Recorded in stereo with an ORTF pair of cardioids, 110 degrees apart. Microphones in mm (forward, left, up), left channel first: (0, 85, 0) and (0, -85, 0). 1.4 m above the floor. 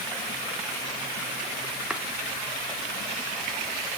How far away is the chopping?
About 2 m.